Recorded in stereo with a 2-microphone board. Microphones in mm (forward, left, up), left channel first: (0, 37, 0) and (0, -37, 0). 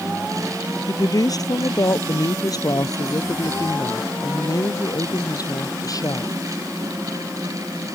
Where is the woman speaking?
55° left (ahead or behind).